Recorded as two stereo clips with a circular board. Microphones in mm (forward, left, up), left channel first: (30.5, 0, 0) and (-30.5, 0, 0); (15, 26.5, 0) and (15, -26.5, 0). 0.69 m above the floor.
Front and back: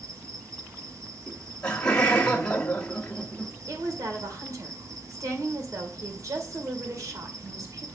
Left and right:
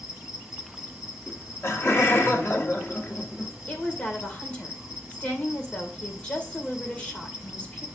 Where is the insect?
165° right, 1.5 m.